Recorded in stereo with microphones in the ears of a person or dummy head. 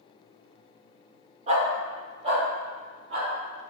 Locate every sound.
1.5 s a dog barking: 40° right (ahead or behind), 1.3 m